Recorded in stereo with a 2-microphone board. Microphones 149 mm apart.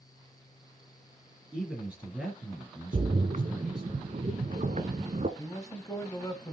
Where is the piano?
No piano in this recording.